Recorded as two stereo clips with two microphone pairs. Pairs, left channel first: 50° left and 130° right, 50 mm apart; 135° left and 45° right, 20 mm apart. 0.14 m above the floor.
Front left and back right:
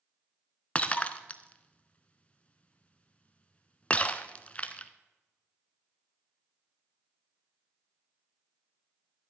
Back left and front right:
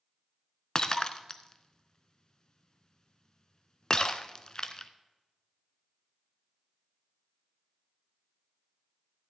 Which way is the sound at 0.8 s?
105° left.